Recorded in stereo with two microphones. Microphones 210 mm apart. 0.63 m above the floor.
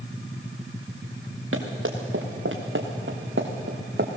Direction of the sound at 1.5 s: 80° right.